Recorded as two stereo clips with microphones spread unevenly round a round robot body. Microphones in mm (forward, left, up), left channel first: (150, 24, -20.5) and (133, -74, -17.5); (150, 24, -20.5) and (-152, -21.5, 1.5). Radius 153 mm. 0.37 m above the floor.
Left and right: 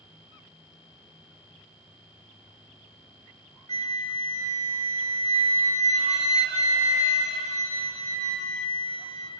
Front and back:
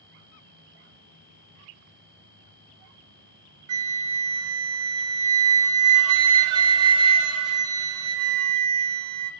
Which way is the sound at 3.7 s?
125° right.